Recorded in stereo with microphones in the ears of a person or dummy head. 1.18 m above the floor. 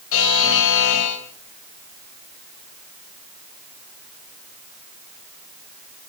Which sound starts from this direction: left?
A buzzer, at 0.1 s.